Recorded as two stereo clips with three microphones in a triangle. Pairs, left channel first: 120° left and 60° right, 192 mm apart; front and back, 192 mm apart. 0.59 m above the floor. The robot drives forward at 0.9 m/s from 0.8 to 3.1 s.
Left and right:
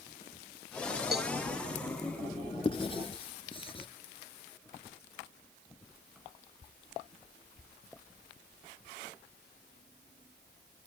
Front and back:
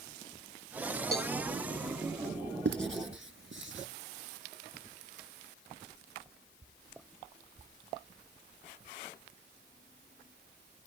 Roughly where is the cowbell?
Ahead right.